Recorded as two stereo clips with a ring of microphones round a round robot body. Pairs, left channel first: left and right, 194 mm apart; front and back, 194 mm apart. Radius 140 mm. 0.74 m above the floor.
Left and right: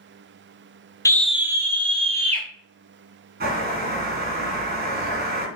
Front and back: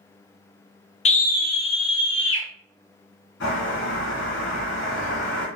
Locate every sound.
1.1 s a scream: 25° left, 0.5 m; by 2.5 s 35° right, 1.4 m
3.4 s a bird: 50° right, 3 m